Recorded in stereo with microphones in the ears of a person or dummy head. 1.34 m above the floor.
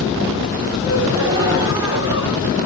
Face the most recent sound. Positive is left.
turn(degrees=-20)  # may be behind; listen again after turning